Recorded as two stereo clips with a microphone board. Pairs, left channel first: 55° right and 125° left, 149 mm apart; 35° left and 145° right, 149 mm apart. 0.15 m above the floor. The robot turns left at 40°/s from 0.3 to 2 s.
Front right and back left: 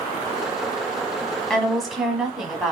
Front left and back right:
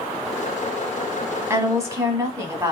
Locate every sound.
1.5 s a woman speaking: 130° right, 1.1 m; by 2.7 s 150° right, 1.1 m